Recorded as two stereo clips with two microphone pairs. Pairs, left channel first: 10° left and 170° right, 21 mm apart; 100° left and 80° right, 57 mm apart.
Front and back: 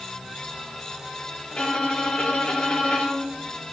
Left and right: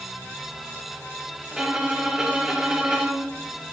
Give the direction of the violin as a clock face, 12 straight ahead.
12 o'clock.